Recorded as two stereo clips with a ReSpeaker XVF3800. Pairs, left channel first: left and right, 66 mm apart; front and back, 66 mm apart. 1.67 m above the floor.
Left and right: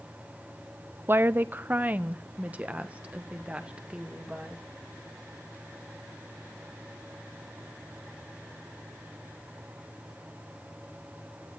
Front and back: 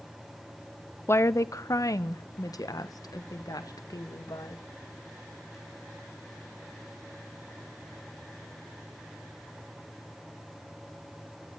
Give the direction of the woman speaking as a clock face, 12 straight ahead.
1 o'clock.